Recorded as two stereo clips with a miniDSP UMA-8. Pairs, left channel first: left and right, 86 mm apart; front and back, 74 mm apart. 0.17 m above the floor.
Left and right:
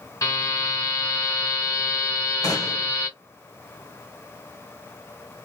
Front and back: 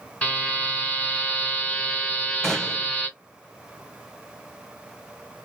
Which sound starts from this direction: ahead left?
A buzzer, at 0.2 s.